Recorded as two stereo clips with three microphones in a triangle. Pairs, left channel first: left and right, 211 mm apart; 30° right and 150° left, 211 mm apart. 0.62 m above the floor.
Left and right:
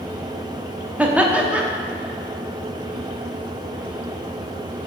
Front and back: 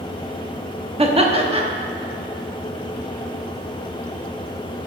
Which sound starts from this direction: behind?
Laughter, at 1.0 s.